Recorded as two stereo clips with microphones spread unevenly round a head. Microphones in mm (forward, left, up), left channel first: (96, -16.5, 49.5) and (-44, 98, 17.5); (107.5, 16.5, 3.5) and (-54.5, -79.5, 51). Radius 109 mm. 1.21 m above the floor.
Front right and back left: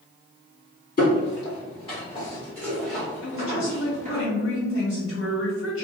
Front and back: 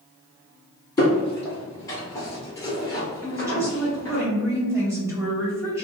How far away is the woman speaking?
About 1.7 m.